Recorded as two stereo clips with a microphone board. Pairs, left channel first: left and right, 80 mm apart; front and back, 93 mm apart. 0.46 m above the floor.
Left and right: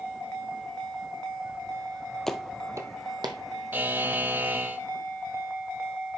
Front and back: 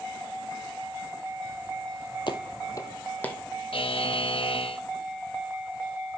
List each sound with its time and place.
2.3 s footsteps: 5° left, 0.7 m; by 3.4 s 75° right, 1.2 m
3.7 s a buzzer: 20° right, 0.5 m